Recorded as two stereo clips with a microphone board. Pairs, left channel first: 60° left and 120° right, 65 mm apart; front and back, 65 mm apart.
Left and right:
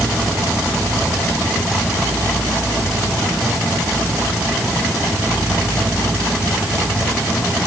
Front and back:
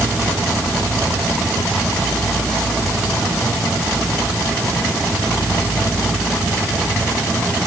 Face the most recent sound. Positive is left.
No sound to turn to.